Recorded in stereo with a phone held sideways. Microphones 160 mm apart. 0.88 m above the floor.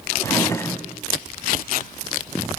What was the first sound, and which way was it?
A drawer, 20° left (ahead or behind).